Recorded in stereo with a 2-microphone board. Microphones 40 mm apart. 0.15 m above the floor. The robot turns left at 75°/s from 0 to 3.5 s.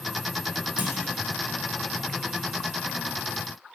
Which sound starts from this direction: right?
A clunk, at 0.8 s.